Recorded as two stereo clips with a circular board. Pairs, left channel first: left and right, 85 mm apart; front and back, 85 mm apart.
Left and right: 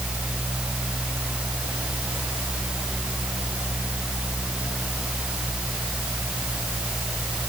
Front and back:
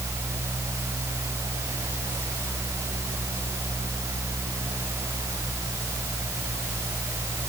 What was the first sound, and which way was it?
Only background noise.